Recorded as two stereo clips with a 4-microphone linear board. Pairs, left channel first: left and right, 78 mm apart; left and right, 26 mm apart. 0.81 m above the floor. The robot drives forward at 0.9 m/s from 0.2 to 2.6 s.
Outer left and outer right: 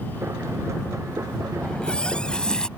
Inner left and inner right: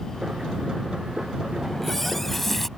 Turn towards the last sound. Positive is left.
turn(degrees=10)  # may be behind; listen again after turning